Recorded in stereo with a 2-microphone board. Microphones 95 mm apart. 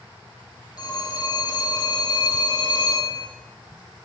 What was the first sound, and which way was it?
A phone ringing, 40° left (ahead or behind).